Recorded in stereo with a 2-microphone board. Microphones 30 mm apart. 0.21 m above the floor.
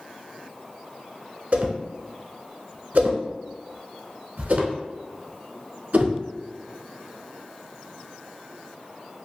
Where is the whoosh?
55° right (ahead or behind), 0.7 m.